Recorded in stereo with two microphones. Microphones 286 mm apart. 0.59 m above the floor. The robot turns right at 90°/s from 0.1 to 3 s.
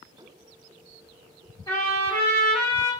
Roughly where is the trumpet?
Behind.